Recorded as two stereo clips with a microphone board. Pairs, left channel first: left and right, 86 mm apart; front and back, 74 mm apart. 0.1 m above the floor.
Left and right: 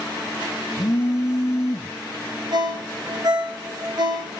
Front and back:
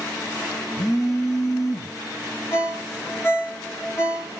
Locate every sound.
0.8 s a phone buzzing: 35° left, 3.5 m
2.5 s a ringtone: 55° right, 4.5 m